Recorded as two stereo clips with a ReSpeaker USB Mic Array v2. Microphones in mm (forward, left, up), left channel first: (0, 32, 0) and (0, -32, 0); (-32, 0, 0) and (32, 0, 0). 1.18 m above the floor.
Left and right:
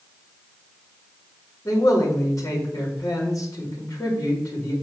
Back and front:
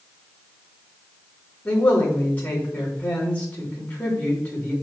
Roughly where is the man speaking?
Behind left.